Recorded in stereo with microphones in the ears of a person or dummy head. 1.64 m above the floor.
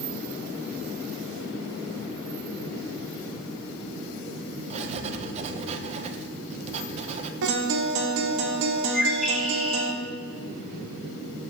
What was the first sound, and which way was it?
Writing, 35° right (ahead or behind).